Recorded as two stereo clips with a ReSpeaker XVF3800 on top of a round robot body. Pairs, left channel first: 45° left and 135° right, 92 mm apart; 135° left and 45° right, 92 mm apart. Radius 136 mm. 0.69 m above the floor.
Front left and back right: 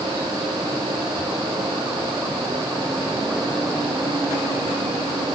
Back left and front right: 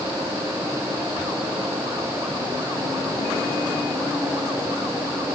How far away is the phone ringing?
I don't hear a phone ringing.